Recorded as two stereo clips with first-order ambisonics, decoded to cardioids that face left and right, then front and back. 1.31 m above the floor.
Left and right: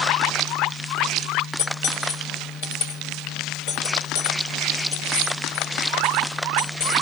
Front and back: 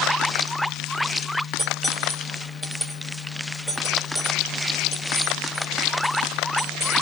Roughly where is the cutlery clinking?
Left.